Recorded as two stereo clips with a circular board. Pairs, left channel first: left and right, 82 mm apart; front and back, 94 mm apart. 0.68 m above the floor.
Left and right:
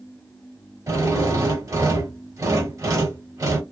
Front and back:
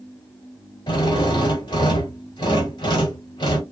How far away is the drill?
About 1.3 m.